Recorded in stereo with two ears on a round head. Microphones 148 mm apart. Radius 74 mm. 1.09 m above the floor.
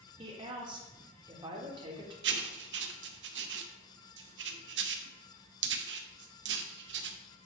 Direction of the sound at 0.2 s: 30° right (ahead or behind).